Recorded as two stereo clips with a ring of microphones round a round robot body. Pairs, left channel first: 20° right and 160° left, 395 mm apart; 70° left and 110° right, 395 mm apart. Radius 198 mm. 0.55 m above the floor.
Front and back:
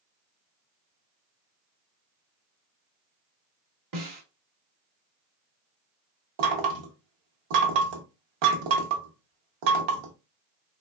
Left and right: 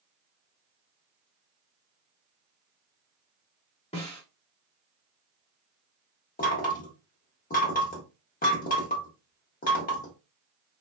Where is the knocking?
140° left, 0.8 m.